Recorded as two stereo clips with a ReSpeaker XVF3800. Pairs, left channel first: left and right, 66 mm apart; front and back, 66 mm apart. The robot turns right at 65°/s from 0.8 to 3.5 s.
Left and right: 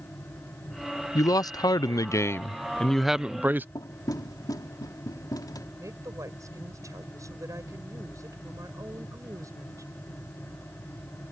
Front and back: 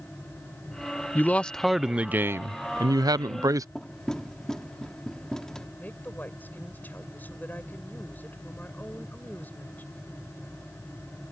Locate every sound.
1.1 s a man speaking: 55° left; by 3.6 s 150° right
3.8 s knocking: 80° left
5.8 s a woman speaking: 60° right